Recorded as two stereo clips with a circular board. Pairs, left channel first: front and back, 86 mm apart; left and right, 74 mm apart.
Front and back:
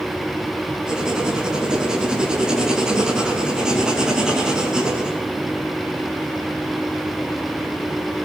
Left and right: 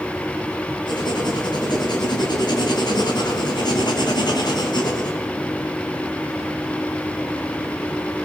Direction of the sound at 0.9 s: 100° left.